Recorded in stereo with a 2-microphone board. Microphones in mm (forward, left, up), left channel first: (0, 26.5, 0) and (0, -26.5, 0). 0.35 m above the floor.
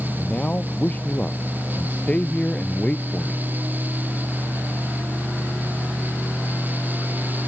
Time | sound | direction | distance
0.2 | a man speaking | 30° left (ahead or behind) | ?